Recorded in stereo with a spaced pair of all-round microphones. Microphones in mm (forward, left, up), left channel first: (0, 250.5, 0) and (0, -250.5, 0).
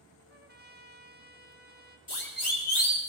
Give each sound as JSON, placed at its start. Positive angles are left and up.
{"t": 0.3, "sound": "a trumpet", "side_deg": -20, "distance_m": 1.1}
{"t": 2.1, "sound": "a siren", "side_deg": 80, "distance_m": 3.0}